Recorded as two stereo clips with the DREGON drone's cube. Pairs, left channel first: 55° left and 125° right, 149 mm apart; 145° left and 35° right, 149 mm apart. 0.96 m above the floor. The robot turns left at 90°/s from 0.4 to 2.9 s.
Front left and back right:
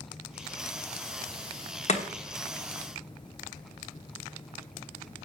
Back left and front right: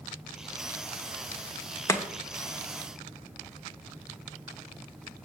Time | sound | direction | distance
1.9 | chopping | 80° left | 1.1 m